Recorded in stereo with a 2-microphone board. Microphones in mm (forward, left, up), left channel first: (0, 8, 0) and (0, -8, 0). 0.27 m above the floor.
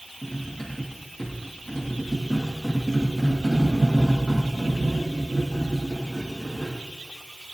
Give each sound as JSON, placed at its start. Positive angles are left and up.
{"t": 0.2, "sound": "cutlery clinking", "side_deg": 45, "distance_m": 8.5}